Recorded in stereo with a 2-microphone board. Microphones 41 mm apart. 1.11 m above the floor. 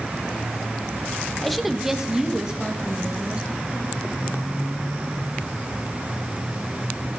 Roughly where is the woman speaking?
Centre.